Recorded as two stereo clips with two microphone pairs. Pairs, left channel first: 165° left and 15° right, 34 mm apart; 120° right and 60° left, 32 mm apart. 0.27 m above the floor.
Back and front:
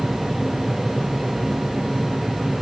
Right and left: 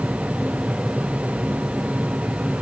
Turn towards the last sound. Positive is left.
No sound to turn to.